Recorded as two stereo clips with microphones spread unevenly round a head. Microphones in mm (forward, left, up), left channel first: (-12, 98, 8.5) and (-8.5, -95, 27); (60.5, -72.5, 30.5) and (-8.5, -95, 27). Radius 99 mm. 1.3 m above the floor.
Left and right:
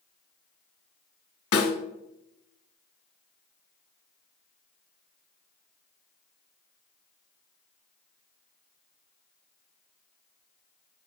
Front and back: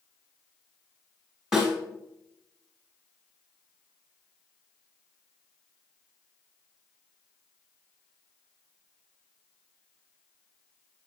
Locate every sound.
1.5 s a snare drum: 110° left, 2.5 m